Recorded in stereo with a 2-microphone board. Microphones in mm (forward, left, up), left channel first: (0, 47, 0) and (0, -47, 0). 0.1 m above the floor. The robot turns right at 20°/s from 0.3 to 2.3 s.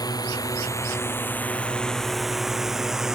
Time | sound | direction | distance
0.0 | a drone | 40° left (ahead or behind) | ?